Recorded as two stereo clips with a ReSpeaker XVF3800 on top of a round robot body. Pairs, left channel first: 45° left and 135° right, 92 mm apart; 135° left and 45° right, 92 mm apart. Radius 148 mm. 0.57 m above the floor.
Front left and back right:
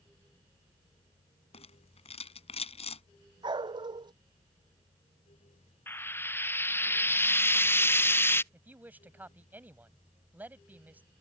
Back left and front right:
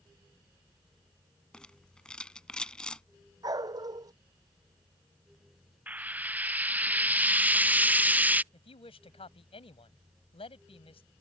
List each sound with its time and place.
1.5 s a rattle: 55° left
3.4 s a dog barking: 95° right
5.9 s frying: 10° left
8.5 s a woman speaking: 155° left